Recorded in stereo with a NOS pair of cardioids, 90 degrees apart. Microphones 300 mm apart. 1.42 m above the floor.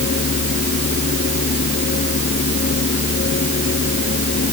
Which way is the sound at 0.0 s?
35° left.